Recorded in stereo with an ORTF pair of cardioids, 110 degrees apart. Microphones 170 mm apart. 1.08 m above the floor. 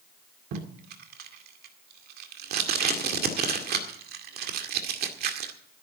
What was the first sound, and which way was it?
Tape being pulled, 65° right.